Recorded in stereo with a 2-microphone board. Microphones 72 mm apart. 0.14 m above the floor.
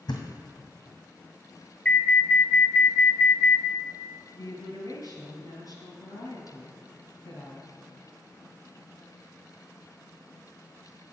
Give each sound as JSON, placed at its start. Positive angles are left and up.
{"t": 0.1, "sound": "a thud", "side_deg": 80, "distance_m": 1.8}
{"t": 1.9, "sound": "an alarm", "side_deg": 25, "distance_m": 1.0}
{"t": 4.3, "sound": "a woman speaking", "side_deg": 65, "distance_m": 2.5}